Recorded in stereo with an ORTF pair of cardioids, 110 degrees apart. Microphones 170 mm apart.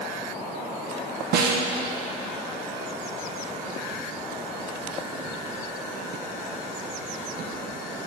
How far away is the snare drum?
About 1.0 m.